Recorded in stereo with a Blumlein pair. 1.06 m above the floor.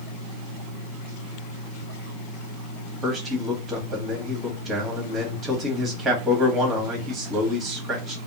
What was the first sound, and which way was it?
A man speaking, 20° right.